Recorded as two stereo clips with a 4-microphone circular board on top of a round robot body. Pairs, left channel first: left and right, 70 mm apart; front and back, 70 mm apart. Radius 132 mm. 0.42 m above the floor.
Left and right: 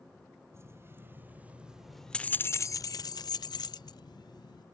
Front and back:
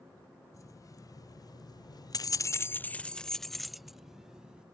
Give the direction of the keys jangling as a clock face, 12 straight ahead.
1 o'clock.